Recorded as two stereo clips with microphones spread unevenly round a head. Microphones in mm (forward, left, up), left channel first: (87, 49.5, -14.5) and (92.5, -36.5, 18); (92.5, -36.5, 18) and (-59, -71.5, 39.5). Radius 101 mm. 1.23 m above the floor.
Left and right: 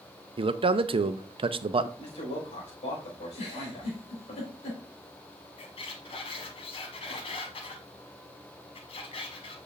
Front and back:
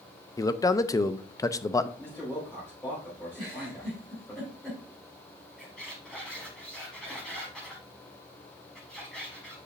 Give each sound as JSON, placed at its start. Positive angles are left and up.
{"t": 0.4, "sound": "a man speaking", "azimuth_deg": -50, "distance_m": 0.7}
{"t": 2.0, "sound": "a man speaking", "azimuth_deg": 95, "distance_m": 5.0}
{"t": 3.4, "sound": "a giggle", "azimuth_deg": 95, "distance_m": 3.0}
{"t": 5.6, "sound": "a squeak", "azimuth_deg": 110, "distance_m": 1.4}